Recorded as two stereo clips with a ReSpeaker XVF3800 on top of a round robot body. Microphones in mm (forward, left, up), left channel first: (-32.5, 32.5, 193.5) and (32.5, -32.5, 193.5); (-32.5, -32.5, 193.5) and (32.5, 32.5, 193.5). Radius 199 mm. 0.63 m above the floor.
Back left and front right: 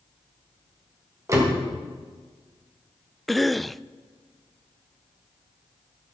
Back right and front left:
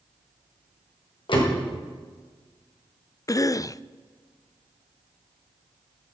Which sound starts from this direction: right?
A door slam, at 1.3 s.